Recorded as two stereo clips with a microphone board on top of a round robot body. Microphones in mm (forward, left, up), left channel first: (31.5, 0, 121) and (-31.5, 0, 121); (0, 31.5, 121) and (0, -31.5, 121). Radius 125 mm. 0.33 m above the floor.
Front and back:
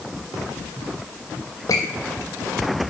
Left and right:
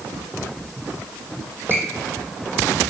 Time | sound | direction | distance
1.7 | a squeak | 35° right | 1.0 m